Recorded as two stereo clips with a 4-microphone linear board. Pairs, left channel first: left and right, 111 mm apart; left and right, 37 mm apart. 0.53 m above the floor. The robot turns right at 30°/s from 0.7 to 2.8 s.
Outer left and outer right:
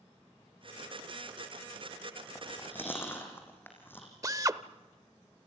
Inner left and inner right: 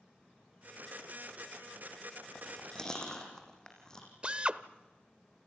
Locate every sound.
2.4 s chewing: 5° left (ahead or behind), 5 m; by 4.1 s 20° left (ahead or behind), 5 m
4.2 s a drill: 30° right (ahead or behind), 0.7 m